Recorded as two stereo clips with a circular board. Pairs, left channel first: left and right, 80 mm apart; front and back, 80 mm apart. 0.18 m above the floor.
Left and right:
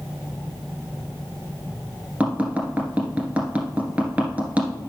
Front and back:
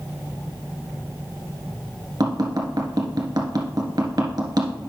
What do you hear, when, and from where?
2.2 s tapping: 160° right, 1.7 m